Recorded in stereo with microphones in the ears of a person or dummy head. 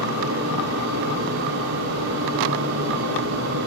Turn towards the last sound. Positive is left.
turn(degrees=-65)  # may be behind; listen again after turning